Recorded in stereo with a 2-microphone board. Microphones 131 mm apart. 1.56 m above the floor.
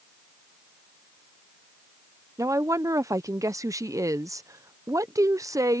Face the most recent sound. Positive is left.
turn(degrees=-25)  # may be behind; listen again after turning